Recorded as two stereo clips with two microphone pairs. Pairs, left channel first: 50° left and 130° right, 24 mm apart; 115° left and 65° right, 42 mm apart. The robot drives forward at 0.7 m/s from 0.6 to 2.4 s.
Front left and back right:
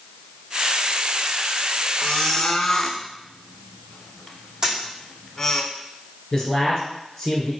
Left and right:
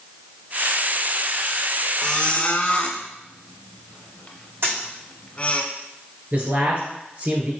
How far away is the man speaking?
About 2 m.